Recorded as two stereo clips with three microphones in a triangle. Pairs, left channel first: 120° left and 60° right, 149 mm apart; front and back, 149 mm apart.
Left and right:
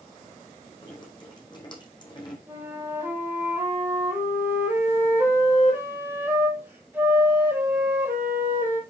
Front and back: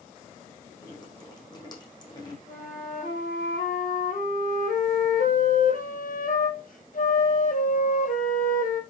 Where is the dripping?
60° left, 4 m.